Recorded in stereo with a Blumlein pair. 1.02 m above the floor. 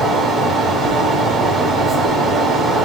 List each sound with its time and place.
0.0 s a fan: 10° right, 9 m